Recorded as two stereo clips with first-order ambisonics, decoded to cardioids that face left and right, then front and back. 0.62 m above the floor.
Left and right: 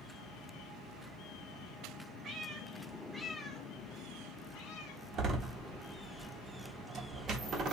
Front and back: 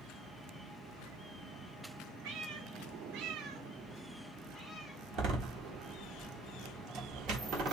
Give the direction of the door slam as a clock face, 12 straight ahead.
5 o'clock.